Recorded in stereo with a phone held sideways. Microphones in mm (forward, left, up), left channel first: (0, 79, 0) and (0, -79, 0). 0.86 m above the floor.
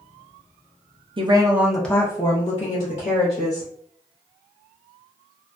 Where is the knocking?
I don't hear knocking.